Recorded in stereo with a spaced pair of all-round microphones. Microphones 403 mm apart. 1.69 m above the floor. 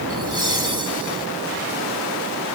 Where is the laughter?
70° right (ahead or behind).